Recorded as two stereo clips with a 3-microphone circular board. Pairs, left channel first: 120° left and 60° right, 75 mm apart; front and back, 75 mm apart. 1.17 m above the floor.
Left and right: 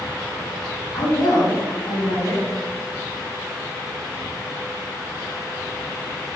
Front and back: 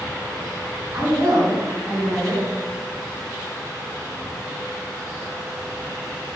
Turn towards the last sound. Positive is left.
turn(degrees=145)